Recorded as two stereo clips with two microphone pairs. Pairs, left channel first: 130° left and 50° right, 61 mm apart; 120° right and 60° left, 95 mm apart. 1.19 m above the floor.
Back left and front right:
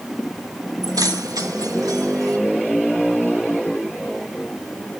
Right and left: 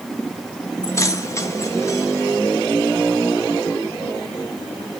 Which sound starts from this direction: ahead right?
Keys jangling, at 0.8 s.